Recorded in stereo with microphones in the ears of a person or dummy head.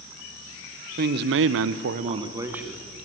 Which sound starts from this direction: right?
A man speaking, at 1.0 s.